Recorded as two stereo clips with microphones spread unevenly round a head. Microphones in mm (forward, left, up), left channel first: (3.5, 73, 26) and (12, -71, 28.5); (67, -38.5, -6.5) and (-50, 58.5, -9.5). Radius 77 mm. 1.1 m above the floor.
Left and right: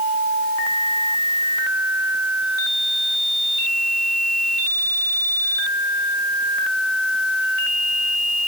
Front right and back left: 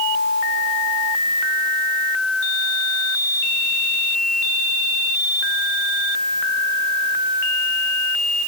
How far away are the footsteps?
I don't hear footsteps.